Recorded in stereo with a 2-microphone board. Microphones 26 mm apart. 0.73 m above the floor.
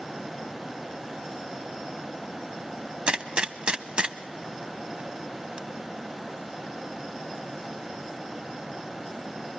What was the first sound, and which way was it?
A gunshot, 40° right (ahead or behind).